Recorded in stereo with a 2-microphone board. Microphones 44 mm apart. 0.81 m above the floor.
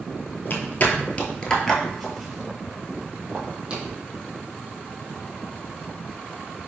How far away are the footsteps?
About 1.0 m.